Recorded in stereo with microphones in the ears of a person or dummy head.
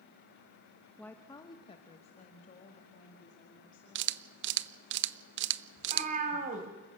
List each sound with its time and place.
1.0 s a woman speaking: 5° left (ahead or behind), 0.7 m; by 4.1 s 40° left (ahead or behind), 3 m
4.0 s a camera shutter: 55° right (ahead or behind), 0.6 m
5.8 s a cat meowing: 35° right (ahead or behind), 2 m